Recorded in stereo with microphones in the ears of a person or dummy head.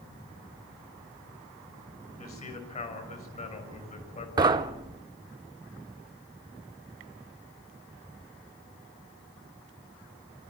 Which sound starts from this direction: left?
A man speaking, at 2.2 s.